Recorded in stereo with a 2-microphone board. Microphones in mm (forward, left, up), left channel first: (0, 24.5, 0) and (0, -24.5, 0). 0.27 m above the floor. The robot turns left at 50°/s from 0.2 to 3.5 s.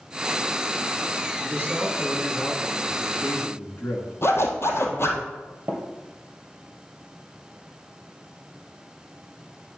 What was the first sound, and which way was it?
A man speaking, 120° right.